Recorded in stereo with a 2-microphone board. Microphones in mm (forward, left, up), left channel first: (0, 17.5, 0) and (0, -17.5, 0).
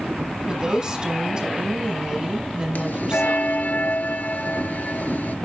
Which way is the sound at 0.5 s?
20° right (ahead or behind).